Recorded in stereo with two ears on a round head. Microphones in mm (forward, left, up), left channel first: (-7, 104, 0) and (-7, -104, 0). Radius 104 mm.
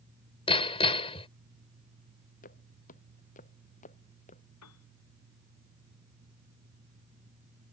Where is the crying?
I don't hear crying.